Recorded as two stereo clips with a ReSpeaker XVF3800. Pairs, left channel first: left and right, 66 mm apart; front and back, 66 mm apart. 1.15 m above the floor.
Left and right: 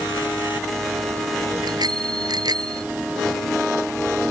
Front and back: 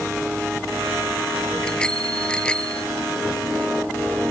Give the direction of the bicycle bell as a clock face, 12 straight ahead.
3 o'clock.